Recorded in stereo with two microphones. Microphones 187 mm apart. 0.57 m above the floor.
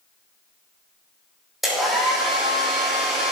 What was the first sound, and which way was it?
A hair dryer, centre (ahead or behind).